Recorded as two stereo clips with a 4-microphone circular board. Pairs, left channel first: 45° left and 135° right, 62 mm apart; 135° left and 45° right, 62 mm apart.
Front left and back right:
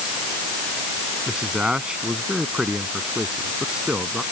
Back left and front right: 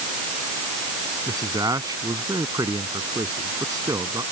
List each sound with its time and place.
1.3 s a man speaking: 60° right